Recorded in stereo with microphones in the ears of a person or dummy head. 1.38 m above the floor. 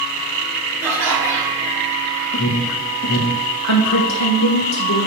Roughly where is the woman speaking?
Left.